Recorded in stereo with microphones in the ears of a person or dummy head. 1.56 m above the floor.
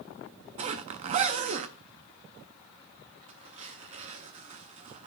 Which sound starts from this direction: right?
A zipper, at 0.6 s.